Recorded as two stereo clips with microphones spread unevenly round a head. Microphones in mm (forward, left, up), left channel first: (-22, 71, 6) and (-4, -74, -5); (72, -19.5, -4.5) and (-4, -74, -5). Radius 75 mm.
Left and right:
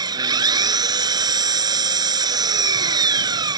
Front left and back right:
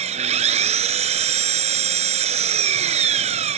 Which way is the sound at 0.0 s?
150° right.